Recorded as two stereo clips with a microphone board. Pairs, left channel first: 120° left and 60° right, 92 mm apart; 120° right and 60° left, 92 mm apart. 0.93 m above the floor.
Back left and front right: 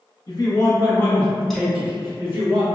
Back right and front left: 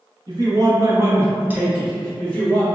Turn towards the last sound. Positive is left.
turn(degrees=-55)